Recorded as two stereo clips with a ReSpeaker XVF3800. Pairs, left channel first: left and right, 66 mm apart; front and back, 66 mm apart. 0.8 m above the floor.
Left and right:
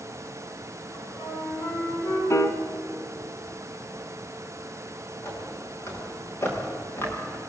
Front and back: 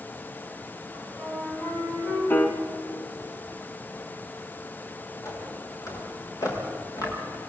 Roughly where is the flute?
Left.